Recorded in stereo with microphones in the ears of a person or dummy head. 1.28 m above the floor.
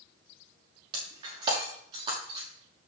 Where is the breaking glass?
25° right (ahead or behind), 6 m.